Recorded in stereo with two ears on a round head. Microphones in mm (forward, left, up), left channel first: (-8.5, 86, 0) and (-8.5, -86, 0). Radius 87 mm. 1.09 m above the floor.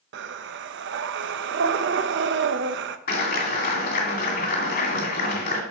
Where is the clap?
55° left (ahead or behind), 2.5 m.